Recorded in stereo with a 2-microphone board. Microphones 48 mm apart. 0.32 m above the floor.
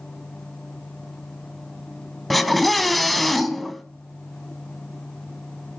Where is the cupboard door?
I don't hear a cupboard door.